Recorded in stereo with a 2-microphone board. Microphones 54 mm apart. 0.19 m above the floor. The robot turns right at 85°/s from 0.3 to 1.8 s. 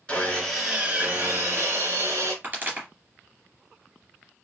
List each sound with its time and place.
0.1 s sawing: 160° left, 2 m; by 2.3 s 70° right, 2 m
2.4 s a pop: 35° right (ahead or behind), 3 m